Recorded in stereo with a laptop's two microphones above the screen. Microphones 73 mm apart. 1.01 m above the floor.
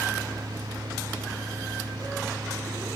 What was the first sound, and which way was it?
A fan, 80° right.